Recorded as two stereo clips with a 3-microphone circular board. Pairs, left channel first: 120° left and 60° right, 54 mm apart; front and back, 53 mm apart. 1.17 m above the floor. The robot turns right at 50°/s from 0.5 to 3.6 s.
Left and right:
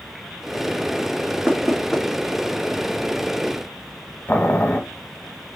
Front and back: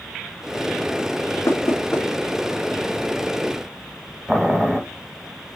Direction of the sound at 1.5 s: 20° left.